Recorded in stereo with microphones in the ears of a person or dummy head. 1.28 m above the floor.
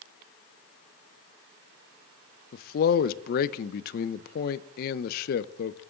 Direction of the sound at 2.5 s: 55° left (ahead or behind).